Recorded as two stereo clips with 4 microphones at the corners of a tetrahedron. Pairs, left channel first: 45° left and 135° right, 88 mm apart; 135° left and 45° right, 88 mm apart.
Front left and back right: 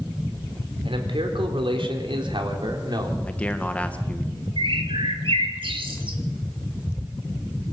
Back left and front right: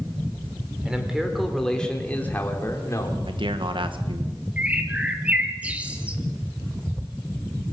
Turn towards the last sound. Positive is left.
turn(degrees=-120)